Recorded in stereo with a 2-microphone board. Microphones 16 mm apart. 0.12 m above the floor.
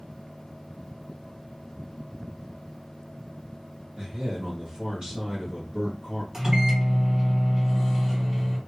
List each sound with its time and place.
4.0 s a man speaking: 45° right (ahead or behind), 2 m
6.3 s a microwave: 25° right (ahead or behind), 2.5 m